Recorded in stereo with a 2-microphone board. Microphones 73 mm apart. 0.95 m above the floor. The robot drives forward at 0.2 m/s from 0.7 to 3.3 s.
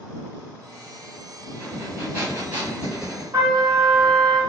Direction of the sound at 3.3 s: 40° right (ahead or behind).